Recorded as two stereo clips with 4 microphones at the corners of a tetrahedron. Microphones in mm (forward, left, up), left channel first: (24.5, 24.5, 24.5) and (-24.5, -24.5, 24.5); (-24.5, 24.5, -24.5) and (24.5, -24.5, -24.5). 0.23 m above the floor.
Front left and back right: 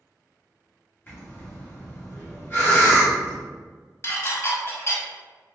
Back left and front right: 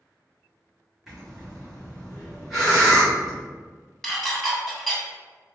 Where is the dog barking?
No dog barking in this recording.